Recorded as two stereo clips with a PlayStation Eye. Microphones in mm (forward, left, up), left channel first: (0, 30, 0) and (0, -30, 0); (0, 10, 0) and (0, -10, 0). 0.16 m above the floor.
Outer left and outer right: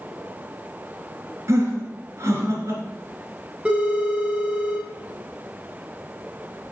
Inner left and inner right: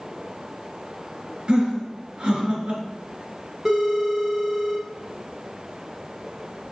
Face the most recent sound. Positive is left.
turn(degrees=-15)  # may be behind; listen again after turning